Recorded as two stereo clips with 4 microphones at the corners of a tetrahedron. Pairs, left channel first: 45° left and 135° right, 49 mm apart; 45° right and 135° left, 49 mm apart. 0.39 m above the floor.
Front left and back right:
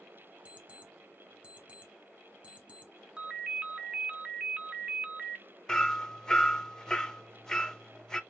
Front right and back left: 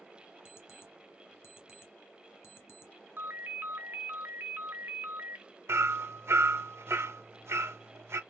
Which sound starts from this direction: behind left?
Hammering, at 5.7 s.